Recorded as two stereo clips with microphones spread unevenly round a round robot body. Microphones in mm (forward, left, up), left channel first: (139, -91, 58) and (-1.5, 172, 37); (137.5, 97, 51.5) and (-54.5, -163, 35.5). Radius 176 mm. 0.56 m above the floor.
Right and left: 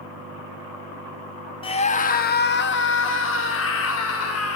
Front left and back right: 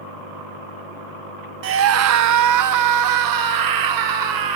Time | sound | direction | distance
1.6 | a scream | 130° right | 0.7 m